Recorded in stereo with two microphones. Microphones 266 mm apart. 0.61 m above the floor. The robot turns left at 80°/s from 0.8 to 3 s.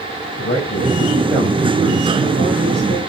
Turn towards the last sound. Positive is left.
turn(degrees=-125)